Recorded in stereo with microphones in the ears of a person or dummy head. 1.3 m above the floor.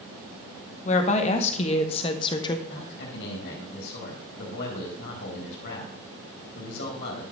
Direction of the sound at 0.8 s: 45° left (ahead or behind).